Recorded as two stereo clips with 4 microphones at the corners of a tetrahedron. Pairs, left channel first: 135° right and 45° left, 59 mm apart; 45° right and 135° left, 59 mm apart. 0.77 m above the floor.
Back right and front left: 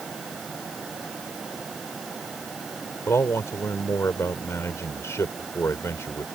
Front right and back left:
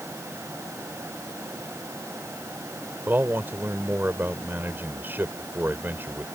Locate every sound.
3.1 s a man speaking: 170° right